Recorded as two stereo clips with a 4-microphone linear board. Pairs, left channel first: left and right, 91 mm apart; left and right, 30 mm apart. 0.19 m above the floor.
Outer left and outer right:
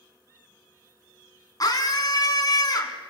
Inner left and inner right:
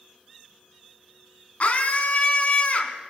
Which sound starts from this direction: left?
A scream, at 1.6 s.